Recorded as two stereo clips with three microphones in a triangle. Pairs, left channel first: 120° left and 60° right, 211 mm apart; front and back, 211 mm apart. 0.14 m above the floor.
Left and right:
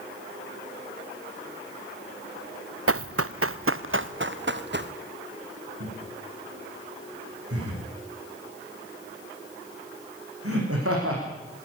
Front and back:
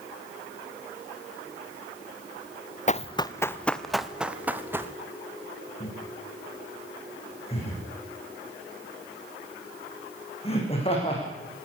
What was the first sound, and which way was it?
Running footsteps, 55° right.